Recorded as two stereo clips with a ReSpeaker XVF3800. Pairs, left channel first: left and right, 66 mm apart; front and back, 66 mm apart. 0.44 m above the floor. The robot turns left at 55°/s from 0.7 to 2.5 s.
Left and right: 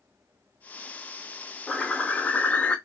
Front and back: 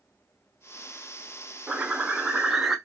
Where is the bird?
150° left, 0.5 m; by 2.8 s 105° left, 0.5 m.